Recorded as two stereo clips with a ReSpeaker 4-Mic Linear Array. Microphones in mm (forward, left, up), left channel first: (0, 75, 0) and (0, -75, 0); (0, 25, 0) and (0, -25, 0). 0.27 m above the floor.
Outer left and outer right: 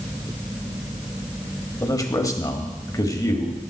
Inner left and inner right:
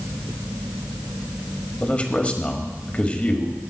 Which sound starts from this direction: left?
A man speaking, at 1.8 s.